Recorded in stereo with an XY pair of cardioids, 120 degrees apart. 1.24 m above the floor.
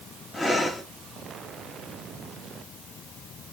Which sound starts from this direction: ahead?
Breathing, at 0.3 s.